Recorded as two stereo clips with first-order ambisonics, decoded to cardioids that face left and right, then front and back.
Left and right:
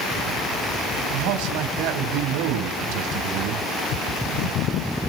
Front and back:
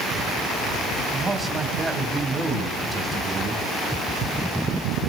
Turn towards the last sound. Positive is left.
turn(degrees=-105)